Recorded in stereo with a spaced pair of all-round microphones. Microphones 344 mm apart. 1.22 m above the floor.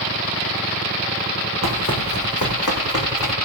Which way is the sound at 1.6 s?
50° left (ahead or behind).